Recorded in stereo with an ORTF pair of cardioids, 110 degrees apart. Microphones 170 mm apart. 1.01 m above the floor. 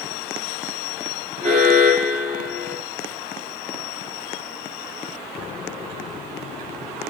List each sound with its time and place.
1.4 s an alarm: 45° right, 2.5 m